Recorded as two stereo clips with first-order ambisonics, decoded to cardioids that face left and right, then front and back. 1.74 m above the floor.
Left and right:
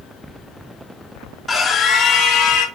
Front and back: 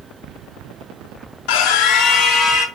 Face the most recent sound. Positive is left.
turn(degrees=55)